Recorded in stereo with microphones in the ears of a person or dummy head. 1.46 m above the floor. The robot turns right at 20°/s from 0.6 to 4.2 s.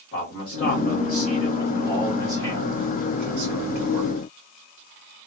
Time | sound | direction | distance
0.1 | a man speaking | 135° left | 1.8 m